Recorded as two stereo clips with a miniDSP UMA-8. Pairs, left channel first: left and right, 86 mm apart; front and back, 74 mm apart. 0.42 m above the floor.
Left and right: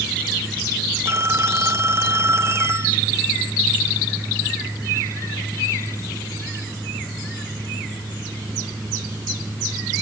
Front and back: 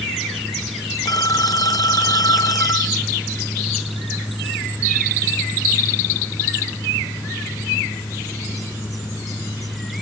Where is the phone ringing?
30° right.